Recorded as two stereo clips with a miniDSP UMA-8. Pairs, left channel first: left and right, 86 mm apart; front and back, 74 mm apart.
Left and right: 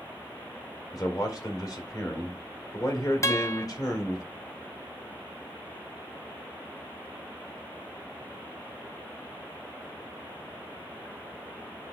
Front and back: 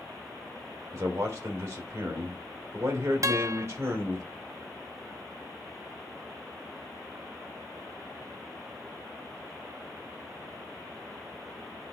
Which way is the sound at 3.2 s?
140° left.